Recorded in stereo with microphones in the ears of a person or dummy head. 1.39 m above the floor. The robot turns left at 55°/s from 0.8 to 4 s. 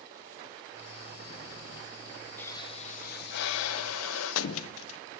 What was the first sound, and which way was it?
A pop, 170° left.